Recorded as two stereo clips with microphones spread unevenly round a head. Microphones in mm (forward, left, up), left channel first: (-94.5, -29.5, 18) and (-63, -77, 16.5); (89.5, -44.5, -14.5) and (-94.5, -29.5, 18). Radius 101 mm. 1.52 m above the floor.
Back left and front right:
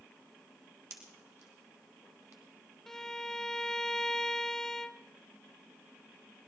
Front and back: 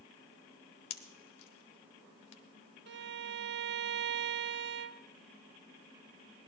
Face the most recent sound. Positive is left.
turn(degrees=-155)